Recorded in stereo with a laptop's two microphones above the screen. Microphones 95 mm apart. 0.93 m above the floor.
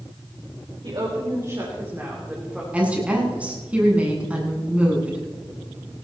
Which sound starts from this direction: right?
A woman speaking, at 0.8 s.